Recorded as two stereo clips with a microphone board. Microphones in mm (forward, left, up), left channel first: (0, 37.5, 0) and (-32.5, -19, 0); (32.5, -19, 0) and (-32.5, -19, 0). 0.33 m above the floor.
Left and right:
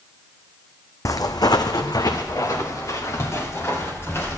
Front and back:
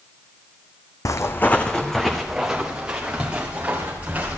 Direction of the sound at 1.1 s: 30° left.